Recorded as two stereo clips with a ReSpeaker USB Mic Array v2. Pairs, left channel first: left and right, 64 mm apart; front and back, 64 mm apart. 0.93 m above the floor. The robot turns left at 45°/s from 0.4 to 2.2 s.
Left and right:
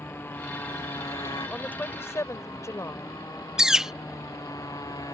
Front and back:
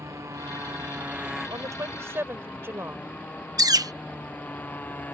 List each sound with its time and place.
0.0 s a motorcycle: 145° left; by 5.2 s 65° left
1.5 s a woman speaking: 160° left; by 3.2 s 130° left
3.6 s a bird: 170° right